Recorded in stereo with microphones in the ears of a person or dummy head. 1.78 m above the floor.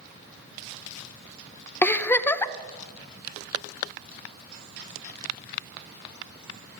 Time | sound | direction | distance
1.8 | a giggle | 10° left (ahead or behind) | 0.5 m